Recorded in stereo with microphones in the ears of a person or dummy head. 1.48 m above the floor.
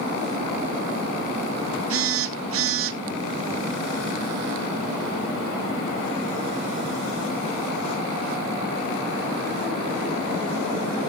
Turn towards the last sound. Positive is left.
turn(degrees=-70)  # may be behind; listen again after turning